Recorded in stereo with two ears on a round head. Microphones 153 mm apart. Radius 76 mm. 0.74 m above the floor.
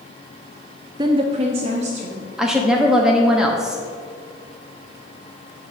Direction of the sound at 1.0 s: 25° right (ahead or behind).